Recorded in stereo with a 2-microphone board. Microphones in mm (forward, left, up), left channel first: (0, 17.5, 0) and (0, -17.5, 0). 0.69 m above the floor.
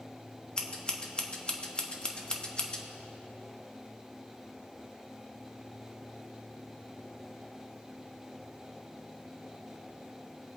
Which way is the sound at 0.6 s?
25° left (ahead or behind).